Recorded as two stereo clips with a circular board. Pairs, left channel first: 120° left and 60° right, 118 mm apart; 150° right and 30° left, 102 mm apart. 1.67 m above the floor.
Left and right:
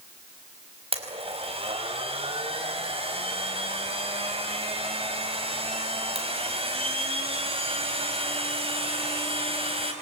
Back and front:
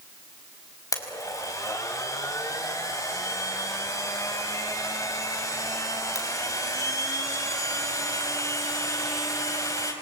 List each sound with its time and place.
0.9 s a blender: 95° right, 4 m